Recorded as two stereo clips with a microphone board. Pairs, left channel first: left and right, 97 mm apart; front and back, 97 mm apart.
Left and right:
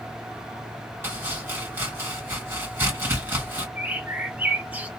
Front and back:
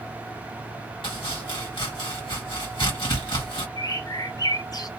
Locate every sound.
1.0 s chopping: 25° right, 1.8 m
3.8 s a bird: 20° right, 0.6 m